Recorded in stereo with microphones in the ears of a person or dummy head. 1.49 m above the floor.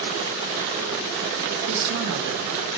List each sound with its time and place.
1.7 s a woman speaking: 65° right (ahead or behind), 1.8 m